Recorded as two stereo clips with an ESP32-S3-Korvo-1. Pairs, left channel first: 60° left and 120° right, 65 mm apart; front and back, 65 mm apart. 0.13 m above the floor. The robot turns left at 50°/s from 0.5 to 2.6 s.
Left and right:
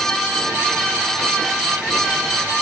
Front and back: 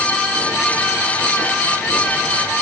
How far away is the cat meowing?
I don't hear a cat meowing.